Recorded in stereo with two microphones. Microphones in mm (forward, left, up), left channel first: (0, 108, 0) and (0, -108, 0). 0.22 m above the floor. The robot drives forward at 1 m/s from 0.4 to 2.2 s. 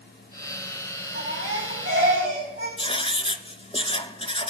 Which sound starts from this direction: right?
A baby crying, at 1.1 s.